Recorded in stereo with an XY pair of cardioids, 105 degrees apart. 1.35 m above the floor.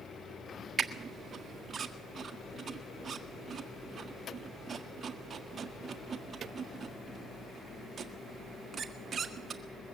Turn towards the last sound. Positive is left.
turn(degrees=-40)